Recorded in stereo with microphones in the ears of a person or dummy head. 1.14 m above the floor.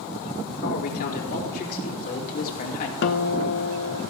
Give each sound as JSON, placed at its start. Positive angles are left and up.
{"t": 0.6, "sound": "a man speaking", "side_deg": 55, "distance_m": 4.5}
{"t": 3.0, "sound": "a guitar", "side_deg": 70, "distance_m": 1.3}